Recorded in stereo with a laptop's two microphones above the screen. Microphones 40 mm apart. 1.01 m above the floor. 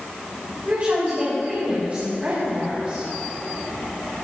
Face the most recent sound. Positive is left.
turn(degrees=-40)  # may be behind; listen again after turning